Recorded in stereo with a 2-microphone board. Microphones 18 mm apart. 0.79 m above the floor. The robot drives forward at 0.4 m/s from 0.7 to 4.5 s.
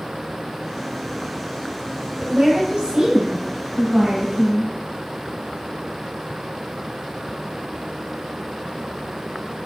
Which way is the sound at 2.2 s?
80° right.